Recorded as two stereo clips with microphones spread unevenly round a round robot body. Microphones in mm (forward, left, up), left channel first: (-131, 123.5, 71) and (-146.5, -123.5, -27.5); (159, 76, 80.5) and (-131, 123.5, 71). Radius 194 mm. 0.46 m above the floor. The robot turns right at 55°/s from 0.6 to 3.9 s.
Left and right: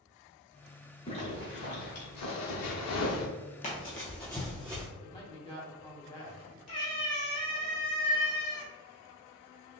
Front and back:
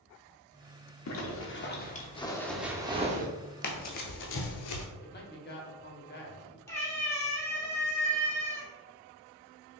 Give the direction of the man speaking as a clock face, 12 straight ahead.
12 o'clock.